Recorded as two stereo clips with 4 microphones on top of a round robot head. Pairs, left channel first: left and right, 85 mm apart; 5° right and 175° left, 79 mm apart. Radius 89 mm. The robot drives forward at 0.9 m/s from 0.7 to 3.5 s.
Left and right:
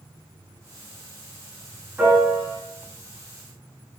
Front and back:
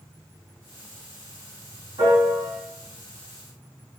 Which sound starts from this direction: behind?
A piano, at 2.0 s.